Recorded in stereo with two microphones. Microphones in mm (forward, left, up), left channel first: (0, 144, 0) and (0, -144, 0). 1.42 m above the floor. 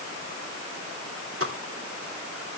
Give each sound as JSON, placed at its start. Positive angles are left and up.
{"t": 1.4, "sound": "a pop", "side_deg": -50, "distance_m": 2.5}